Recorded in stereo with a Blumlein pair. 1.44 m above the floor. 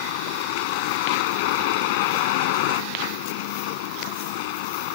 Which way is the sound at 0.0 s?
50° left.